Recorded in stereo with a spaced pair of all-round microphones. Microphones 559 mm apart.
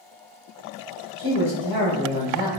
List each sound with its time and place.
1.2 s a man speaking: 35° right (ahead or behind), 0.9 m